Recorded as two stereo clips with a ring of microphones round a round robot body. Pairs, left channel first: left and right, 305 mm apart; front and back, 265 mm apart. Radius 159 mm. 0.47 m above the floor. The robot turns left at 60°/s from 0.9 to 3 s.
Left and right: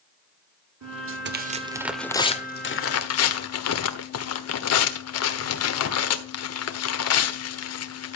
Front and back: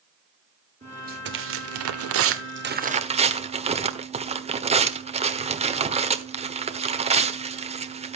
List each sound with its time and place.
0.8 s tearing paper: 115° right, 1.4 m; by 8.2 s 115° left, 1.4 m